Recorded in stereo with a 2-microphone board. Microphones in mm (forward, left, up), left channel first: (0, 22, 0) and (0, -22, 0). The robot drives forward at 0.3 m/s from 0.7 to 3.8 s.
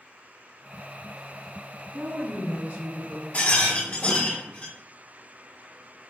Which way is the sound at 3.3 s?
45° left (ahead or behind).